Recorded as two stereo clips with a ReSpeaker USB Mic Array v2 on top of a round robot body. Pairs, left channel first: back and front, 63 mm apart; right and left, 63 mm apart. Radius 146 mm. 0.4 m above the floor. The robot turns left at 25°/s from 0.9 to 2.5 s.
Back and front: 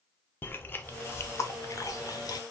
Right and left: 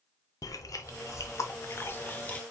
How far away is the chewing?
About 0.7 m.